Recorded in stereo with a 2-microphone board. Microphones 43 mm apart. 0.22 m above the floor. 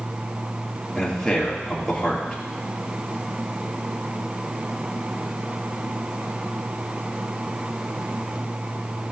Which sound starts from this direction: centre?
A man speaking, at 0.9 s.